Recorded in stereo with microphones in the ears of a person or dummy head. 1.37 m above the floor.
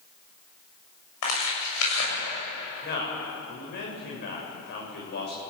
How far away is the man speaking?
About 7 m.